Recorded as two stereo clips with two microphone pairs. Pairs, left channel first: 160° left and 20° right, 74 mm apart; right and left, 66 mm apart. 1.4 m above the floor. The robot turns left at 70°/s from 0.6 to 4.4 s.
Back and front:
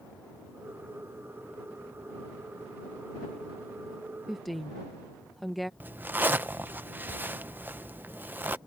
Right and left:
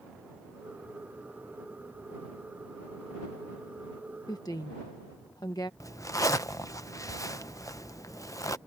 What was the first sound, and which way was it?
A woman speaking, 100° right.